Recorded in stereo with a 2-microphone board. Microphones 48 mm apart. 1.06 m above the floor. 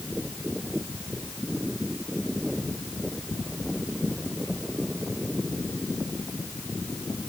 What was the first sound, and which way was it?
Only background noise.